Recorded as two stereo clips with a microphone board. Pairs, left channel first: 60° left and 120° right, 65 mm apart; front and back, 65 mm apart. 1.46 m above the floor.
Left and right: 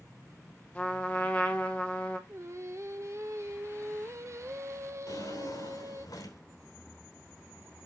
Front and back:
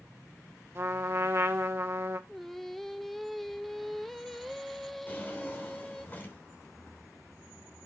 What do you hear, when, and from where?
0.8 s a trumpet: 130° left, 1.3 m
2.3 s singing: 85° right, 0.6 m
5.1 s a drawer: 60° left, 2.5 m